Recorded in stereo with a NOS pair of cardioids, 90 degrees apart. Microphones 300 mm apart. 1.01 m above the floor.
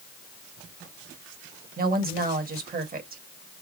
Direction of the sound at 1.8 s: 30° right.